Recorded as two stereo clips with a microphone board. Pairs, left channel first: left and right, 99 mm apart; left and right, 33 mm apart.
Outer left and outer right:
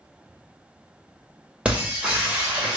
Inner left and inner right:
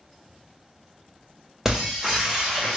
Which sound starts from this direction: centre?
Breaking glass, at 1.6 s.